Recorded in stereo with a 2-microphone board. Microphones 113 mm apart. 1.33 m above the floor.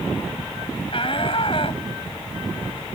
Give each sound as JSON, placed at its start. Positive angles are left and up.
{"t": 0.9, "sound": "a shout", "side_deg": 50}